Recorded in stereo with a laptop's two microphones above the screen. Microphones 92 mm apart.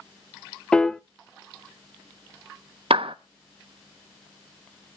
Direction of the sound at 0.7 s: 10° left (ahead or behind).